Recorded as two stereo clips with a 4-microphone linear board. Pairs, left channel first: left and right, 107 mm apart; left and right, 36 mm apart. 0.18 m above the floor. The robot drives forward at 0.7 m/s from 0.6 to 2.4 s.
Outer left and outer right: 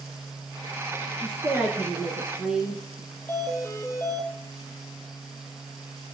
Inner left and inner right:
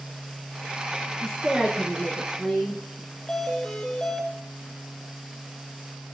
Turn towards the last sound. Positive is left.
turn(degrees=20)  # may be behind; listen again after turning